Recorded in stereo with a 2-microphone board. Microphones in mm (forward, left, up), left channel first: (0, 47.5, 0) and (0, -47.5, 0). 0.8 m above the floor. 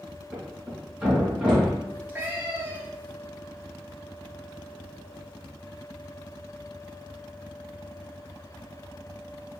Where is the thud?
10° right (ahead or behind), 2.5 m.